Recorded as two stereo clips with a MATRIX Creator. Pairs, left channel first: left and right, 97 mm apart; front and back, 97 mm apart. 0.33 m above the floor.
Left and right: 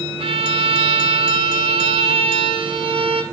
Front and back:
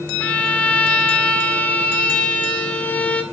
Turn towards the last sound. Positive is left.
turn(degrees=-75)